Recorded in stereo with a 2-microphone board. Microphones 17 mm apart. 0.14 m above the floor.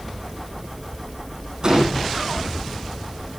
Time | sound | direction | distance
1.6 | a gunshot | 30° right (ahead or behind) | 3.5 m